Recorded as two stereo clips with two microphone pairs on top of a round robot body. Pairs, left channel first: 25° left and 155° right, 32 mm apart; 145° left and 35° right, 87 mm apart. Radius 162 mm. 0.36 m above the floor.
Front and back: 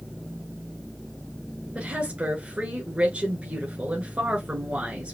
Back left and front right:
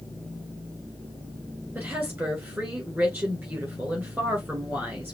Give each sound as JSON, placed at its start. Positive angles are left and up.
{"t": 1.8, "sound": "a woman speaking", "azimuth_deg": -110, "distance_m": 2.5}